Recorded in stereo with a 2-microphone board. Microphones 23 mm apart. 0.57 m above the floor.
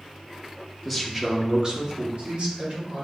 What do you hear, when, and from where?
0.8 s a man speaking: centre (ahead or behind), 0.9 m; by 3.0 s 65° right (ahead or behind), 1.8 m